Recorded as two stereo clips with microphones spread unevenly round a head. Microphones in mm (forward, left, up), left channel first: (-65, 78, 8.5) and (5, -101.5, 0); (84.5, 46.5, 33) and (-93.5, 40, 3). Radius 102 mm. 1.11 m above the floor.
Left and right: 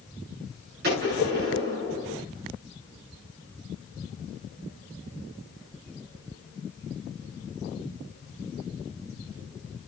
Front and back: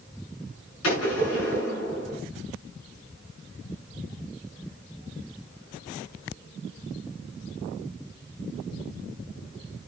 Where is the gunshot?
20° right, 7.5 m.